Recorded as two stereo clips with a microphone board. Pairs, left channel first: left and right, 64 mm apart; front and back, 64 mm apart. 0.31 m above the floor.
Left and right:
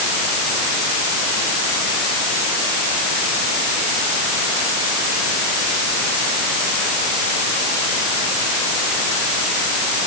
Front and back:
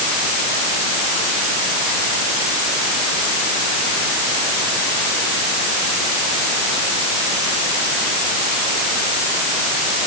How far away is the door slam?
No door slam in this recording.